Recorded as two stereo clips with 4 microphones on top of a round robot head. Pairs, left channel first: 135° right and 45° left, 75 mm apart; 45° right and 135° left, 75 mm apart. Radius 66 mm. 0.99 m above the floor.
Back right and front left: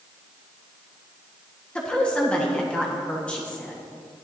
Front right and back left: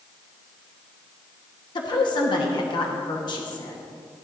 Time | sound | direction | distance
1.8 | a woman speaking | 60° right | 1.4 m